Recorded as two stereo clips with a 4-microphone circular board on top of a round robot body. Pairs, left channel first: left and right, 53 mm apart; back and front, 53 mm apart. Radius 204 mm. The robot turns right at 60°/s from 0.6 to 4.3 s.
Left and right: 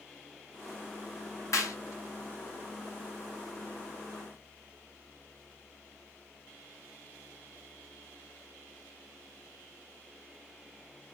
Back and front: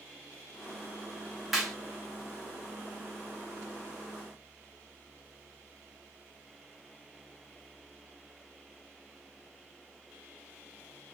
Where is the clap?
85° left, 1.9 m; by 1.8 s 100° left, 1.9 m.